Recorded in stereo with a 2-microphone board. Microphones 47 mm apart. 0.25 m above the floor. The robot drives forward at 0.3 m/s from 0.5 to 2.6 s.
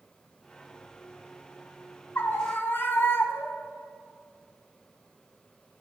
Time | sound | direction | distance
2.1 | a scream | 50° left (ahead or behind) | 1.7 m